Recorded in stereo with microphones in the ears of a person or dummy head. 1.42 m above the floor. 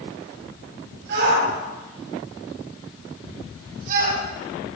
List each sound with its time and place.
1.1 s a shout: 70° right (ahead or behind), 9.5 m; by 4.2 s 55° right (ahead or behind), 10.5 m